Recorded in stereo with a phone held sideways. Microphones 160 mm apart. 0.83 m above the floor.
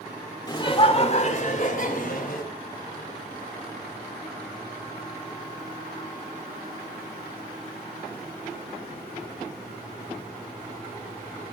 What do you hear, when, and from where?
0.5 s laughter: 25° left (ahead or behind), 2 m; by 2.5 s 65° left (ahead or behind), 4.5 m